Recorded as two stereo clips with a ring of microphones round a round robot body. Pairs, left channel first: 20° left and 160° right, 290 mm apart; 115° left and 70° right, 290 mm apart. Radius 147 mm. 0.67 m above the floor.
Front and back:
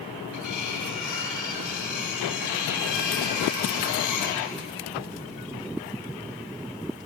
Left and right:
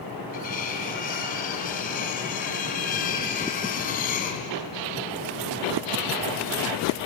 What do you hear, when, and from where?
0.3 s cutlery clinking: 50° left, 3 m